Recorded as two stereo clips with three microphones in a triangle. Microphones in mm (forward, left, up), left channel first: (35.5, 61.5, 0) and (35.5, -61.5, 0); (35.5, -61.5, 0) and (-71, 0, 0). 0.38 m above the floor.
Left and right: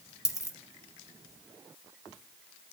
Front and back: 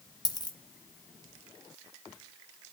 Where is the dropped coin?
25° left, 1.6 m.